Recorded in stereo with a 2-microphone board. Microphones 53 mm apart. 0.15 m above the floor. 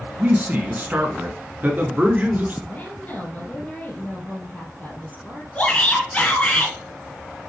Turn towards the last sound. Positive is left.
turn(degrees=25)  # may be behind; listen again after turning